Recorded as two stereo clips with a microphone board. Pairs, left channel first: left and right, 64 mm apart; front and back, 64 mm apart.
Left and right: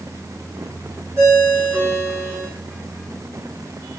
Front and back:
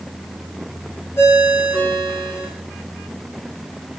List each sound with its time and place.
1.2 s a ringtone: 45° right, 5 m